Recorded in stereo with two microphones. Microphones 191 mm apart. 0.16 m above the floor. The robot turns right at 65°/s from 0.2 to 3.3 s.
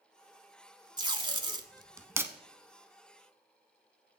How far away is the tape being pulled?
About 0.8 m.